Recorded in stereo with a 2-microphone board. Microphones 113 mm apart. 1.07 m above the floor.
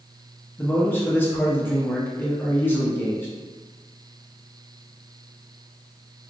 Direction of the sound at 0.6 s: 15° left (ahead or behind).